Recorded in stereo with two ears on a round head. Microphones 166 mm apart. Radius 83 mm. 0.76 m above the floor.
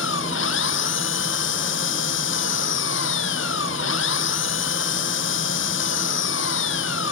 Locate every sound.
0.0 s an engine running: 75° left (ahead or behind)